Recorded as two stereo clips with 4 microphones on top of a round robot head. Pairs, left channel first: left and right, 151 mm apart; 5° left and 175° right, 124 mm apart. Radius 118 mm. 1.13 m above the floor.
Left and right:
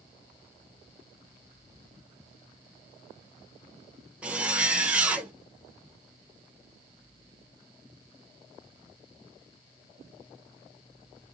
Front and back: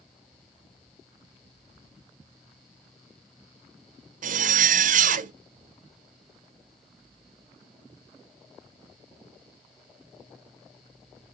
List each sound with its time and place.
4.2 s a zipper: 175° right, 0.6 m